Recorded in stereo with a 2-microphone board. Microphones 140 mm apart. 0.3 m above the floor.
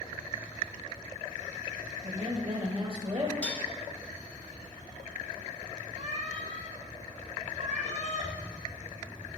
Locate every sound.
2.0 s a woman speaking: 40° right (ahead or behind), 1.3 m
3.4 s dishes clattering: 10° left (ahead or behind), 0.8 m
6.0 s a cat meowing: 55° right (ahead or behind), 1.7 m